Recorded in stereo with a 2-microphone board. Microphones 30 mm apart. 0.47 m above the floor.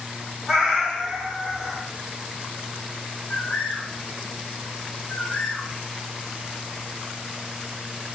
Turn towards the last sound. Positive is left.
turn(degrees=50)  # may be behind; listen again after turning